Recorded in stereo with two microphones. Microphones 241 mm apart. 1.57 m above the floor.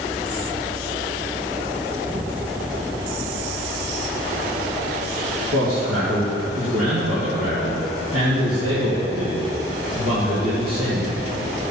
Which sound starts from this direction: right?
A man speaking, at 5.5 s.